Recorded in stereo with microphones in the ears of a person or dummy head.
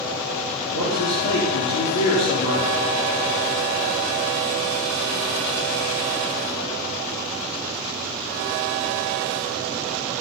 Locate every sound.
0.7 s a man speaking: 50° left (ahead or behind), 4.5 m